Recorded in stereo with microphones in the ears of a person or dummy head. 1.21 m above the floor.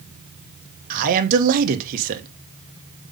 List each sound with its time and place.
0.9 s a man speaking: 45° right (ahead or behind), 1.2 m